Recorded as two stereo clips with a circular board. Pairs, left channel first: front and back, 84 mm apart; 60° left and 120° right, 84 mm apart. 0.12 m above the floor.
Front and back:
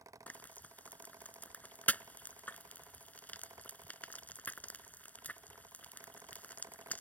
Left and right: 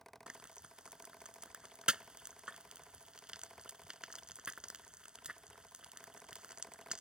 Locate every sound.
0.3 s frying: 50° right